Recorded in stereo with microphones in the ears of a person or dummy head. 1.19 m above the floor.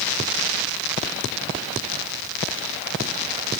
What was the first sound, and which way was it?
Only background noise.